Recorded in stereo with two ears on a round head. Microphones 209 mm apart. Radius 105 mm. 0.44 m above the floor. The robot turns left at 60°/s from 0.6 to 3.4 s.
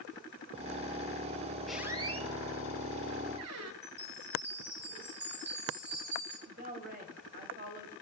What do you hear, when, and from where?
1.7 s a squeak: centre (ahead or behind), 0.9 m; by 3.7 s 70° right (ahead or behind), 0.9 m
3.8 s a chime: 50° right (ahead or behind), 7.5 m
6.5 s a woman speaking: 40° right (ahead or behind), 1.8 m